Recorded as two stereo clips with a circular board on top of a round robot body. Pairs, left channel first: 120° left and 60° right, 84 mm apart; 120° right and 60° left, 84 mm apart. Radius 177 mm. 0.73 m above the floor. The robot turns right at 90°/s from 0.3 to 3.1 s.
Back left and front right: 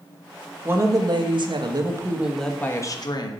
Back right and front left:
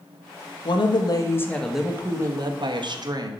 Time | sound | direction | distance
0.7 | a woman speaking | 125° right | 1.4 m